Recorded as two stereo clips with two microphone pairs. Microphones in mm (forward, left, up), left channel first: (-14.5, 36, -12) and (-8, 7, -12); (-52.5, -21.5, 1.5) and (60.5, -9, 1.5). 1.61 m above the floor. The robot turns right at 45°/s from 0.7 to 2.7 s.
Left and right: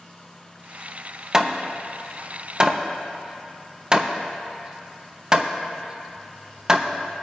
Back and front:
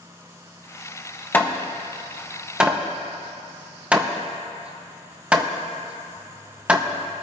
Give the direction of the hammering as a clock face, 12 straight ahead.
4 o'clock.